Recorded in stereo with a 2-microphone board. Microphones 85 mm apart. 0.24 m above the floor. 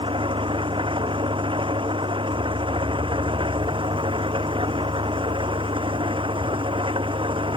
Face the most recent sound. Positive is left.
turn(degrees=-85)